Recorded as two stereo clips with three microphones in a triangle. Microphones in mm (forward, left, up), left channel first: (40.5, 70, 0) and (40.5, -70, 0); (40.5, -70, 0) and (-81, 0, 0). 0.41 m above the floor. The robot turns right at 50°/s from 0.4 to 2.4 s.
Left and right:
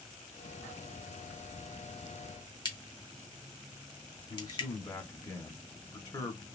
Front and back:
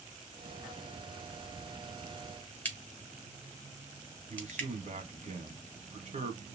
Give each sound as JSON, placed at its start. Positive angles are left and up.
{"t": 2.6, "sound": "a crack", "azimuth_deg": 45, "distance_m": 0.9}
{"t": 4.3, "sound": "a man speaking", "azimuth_deg": 150, "distance_m": 1.4}